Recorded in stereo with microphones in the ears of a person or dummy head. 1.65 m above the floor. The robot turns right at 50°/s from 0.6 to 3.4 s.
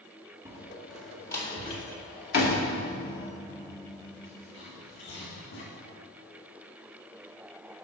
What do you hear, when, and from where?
0.5 s a door slam: 15° right (ahead or behind), 1.9 m; by 5.7 s 50° left (ahead or behind), 1.9 m